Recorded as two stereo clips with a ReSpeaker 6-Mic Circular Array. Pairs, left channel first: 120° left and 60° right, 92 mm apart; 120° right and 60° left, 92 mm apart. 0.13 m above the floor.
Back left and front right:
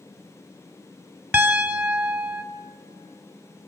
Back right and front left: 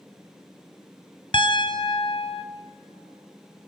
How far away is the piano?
About 2 m.